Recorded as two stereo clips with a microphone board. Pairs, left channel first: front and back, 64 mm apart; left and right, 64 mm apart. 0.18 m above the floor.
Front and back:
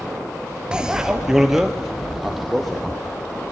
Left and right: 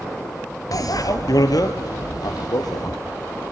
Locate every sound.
0.7 s a bicycle bell: 105° left, 2 m; by 2.9 s 90° left, 5 m